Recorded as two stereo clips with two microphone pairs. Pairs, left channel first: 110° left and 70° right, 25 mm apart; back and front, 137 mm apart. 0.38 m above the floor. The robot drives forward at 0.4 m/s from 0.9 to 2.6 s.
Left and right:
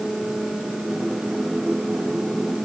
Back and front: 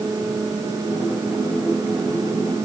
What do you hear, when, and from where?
Only background noise.